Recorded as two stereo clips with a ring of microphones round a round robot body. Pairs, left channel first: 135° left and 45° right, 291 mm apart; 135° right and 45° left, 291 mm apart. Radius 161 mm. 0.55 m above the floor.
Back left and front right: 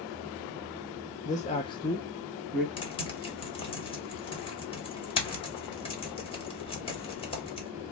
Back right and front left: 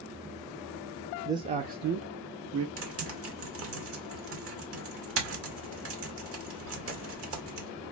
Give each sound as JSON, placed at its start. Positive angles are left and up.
{"t": 1.2, "sound": "a man speaking", "azimuth_deg": 115, "distance_m": 0.6}
{"t": 2.8, "sound": "typing on a keyboard", "azimuth_deg": 70, "distance_m": 1.6}